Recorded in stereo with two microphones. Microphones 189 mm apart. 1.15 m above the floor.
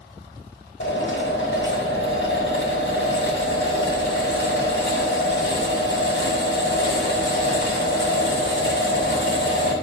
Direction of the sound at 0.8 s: 75° left (ahead or behind).